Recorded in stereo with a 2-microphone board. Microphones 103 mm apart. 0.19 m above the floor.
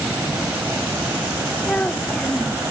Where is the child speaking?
15° left (ahead or behind).